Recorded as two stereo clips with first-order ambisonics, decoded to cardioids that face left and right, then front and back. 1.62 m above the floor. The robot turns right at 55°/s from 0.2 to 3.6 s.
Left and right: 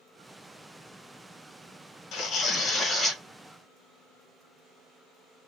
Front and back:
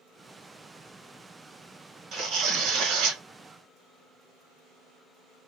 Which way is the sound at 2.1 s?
130° left.